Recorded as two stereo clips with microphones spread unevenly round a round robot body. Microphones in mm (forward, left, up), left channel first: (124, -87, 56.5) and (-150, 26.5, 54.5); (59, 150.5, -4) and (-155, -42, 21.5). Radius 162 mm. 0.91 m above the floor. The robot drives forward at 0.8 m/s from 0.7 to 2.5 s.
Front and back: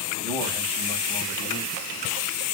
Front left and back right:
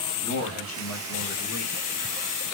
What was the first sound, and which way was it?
A man speaking, 75° left.